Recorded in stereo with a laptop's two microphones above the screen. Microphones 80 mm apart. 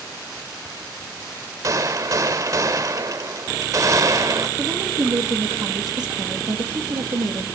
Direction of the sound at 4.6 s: 65° right (ahead or behind).